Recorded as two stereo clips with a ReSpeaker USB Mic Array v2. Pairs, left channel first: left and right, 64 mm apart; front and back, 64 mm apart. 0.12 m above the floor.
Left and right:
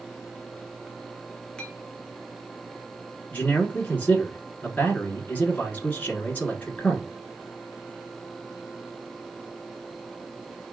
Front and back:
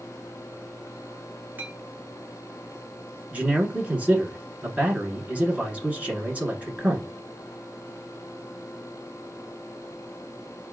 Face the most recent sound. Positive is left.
turn(degrees=130)